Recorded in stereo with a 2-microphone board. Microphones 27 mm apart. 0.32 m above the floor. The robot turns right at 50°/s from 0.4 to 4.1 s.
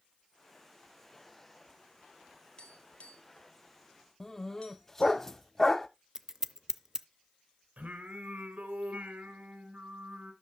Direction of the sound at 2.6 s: 35° left (ahead or behind).